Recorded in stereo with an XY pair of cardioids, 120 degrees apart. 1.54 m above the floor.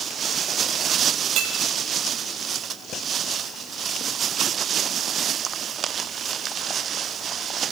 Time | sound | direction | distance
1.4 | breaking glass | 60° right | 5 m